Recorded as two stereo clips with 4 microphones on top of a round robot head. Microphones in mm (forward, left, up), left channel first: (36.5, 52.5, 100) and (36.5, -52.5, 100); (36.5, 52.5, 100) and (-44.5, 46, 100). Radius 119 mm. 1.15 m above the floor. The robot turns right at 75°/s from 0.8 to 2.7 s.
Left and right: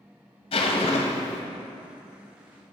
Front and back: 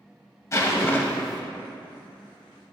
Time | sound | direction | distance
0.5 | a zipper | 55° left | 0.8 m